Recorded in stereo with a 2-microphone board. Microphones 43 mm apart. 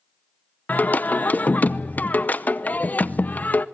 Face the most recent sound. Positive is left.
turn(degrees=45)  # may be behind; listen again after turning